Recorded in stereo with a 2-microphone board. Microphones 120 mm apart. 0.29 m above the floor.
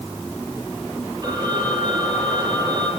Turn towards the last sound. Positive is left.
turn(degrees=-35)  # may be behind; listen again after turning